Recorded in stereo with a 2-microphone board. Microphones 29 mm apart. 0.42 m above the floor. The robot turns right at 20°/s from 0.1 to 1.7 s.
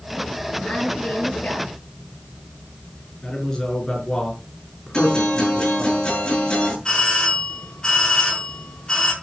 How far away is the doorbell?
About 7 m.